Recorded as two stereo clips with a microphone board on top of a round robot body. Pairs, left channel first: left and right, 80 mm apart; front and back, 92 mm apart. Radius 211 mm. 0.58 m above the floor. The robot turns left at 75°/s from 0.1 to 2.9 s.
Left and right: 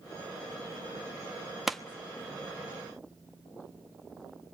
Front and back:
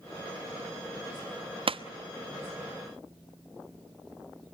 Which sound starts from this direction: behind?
A pop, at 1.7 s.